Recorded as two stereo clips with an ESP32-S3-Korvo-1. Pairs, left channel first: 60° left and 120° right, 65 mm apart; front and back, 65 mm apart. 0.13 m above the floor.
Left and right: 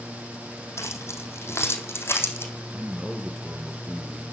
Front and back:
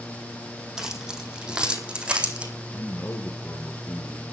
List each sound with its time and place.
0.8 s keys jangling: 100° left, 4 m; by 2.5 s 110° left, 5 m
2.7 s a man speaking: 45° right, 3 m